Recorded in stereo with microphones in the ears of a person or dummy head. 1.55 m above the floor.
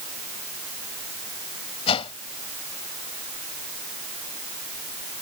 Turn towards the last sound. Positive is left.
turn(degrees=30)  # may be behind; listen again after turning